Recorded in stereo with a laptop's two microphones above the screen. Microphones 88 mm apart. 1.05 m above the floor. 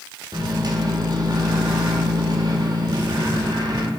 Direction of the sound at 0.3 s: 50° right (ahead or behind).